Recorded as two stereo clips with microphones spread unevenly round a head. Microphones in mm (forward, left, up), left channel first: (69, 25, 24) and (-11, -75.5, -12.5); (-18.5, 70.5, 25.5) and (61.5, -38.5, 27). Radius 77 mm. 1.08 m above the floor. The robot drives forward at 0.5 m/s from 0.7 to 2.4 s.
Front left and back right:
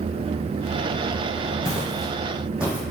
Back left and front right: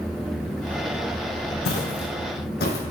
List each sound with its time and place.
1.6 s footsteps: 130° left, 3 m; by 2.8 s 140° left, 2 m